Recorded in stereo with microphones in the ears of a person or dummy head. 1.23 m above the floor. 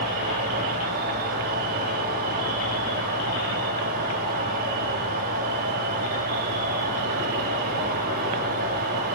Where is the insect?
50° right (ahead or behind), 4 m.